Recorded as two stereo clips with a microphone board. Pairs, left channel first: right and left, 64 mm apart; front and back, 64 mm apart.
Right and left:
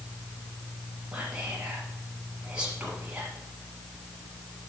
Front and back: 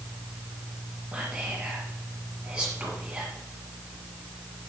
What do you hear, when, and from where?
1.1 s whispering: 140° left, 1.5 m